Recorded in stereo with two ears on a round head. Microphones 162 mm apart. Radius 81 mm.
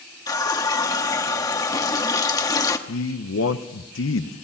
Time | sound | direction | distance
0.3 | a running tap | 20° left (ahead or behind) | 1.2 m
2.9 | a man speaking | 80° left | 0.9 m